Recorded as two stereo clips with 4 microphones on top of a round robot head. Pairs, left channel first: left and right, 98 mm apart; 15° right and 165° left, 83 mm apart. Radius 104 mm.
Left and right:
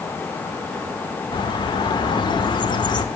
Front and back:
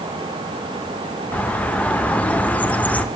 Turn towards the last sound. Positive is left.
turn(degrees=60)